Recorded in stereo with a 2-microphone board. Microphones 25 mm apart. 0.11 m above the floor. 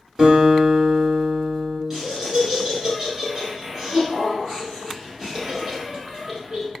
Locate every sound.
0.2 s a guitar: 30° right (ahead or behind), 1.6 m
1.9 s laughter: 20° right (ahead or behind), 1.2 m